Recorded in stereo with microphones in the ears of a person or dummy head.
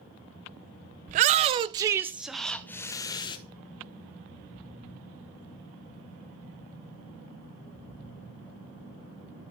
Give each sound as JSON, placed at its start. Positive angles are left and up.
{"t": 1.1, "sound": "a shout", "side_deg": -45, "distance_m": 0.9}